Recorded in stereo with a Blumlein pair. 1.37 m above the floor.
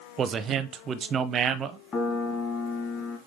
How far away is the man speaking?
About 0.7 m.